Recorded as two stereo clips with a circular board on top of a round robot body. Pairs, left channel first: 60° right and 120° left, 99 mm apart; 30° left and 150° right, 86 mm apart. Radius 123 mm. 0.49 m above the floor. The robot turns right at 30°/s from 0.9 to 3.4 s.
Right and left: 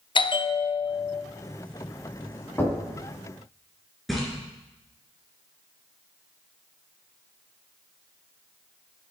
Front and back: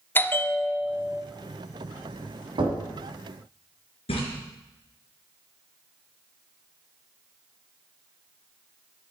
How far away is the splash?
About 3 m.